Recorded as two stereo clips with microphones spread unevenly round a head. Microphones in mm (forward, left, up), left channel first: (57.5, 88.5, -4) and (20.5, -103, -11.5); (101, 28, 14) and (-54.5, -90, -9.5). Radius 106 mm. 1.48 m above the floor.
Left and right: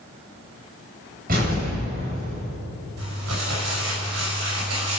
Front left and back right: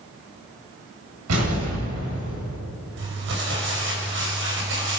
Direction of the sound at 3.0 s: 115° right.